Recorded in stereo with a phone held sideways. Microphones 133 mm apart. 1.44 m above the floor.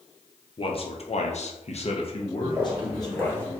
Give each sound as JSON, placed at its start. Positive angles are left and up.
{"t": 0.6, "sound": "a man speaking", "side_deg": 45, "distance_m": 0.8}
{"t": 2.4, "sound": "footsteps", "side_deg": -15, "distance_m": 1.6}